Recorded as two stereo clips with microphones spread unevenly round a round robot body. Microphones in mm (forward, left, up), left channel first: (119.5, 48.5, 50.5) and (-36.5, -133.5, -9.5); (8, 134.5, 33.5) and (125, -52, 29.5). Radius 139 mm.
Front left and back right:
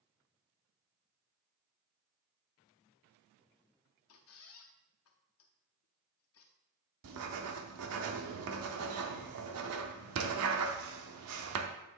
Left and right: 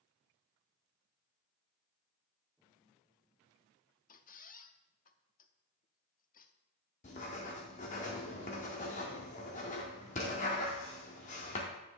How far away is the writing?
About 0.6 m.